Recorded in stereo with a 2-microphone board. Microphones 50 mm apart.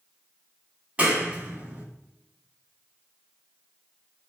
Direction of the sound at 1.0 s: 25° right (ahead or behind).